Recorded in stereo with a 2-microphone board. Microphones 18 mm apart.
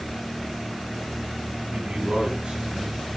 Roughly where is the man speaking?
Right.